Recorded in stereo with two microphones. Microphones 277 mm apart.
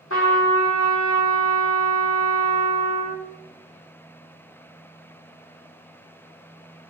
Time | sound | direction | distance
0.1 | a trumpet | 50° left (ahead or behind) | 1.3 m